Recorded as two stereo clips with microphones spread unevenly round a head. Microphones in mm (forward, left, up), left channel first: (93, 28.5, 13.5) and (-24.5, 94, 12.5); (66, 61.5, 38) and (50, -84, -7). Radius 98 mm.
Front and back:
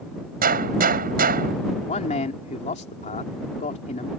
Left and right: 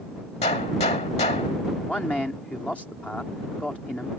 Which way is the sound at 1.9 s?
Straight ahead.